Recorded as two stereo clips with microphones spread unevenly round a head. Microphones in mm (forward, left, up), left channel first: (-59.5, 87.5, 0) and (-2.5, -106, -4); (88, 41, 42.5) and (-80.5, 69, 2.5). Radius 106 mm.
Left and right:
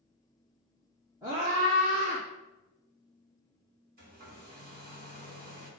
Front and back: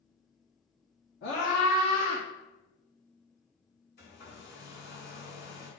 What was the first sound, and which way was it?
A scream, straight ahead.